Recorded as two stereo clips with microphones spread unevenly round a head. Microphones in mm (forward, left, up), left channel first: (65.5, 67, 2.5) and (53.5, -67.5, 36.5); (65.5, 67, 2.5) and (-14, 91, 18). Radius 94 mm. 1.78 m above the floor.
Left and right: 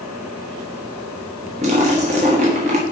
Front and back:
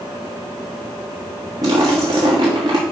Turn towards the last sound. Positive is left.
turn(degrees=-140)